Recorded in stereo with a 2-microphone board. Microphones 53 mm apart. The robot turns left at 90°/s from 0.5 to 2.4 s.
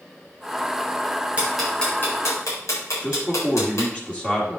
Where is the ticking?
25° right (ahead or behind), 4 m; by 3.9 s 65° left (ahead or behind), 4 m.